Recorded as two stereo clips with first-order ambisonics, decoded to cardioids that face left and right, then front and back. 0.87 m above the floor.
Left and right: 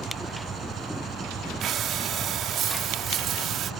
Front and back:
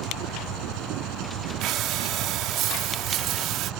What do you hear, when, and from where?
0.0 s an engine running: 155° right
1.6 s breathing: 140° right